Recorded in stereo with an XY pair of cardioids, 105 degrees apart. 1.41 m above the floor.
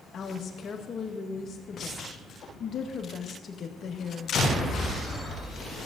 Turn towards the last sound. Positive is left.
turn(degrees=45)